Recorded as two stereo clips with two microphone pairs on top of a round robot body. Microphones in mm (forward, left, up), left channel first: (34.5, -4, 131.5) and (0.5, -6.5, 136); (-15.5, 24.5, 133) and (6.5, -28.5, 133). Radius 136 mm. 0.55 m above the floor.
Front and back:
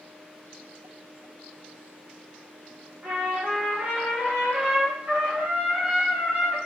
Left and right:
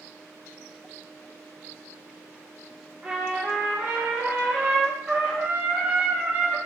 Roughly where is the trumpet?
Behind right.